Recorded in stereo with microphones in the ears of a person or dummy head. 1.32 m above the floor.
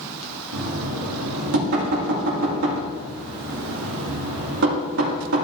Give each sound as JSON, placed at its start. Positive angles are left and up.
{"t": 0.5, "sound": "knocking", "side_deg": -60, "distance_m": 2.5}